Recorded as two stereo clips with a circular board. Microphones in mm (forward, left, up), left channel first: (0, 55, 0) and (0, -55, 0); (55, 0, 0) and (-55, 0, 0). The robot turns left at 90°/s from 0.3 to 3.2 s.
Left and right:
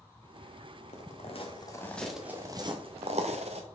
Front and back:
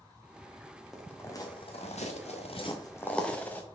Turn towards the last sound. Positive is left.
turn(degrees=-75)